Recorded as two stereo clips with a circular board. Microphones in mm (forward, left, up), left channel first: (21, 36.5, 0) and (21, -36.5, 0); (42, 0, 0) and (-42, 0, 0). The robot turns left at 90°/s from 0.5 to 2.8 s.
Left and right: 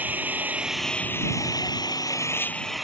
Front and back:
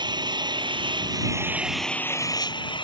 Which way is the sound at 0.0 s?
155° right.